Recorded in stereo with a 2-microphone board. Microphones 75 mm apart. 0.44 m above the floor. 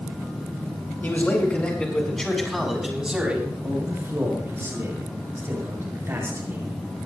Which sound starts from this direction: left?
A man speaking, at 1.0 s.